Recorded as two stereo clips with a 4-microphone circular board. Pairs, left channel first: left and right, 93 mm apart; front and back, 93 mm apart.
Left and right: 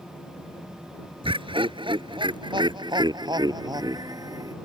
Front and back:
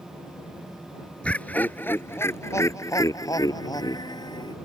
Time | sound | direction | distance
1.2 | laughter | 75° right | ?